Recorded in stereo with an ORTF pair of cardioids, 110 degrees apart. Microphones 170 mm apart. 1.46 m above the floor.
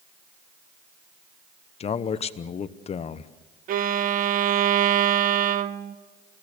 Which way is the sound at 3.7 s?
55° right.